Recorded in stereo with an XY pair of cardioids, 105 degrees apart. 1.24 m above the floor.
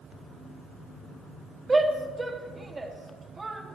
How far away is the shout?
About 2.5 m.